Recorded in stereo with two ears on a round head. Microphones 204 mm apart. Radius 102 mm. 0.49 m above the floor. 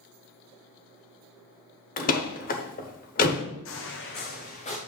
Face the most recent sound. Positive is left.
turn(degrees=30)  # may be behind; listen again after turning